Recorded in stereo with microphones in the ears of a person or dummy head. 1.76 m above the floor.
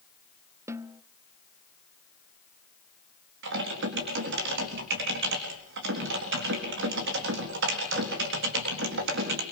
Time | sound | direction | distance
0.7 | a snare drum | 15° right (ahead or behind) | 0.9 m
3.4 | typing on a keyboard | 65° right (ahead or behind) | 3.5 m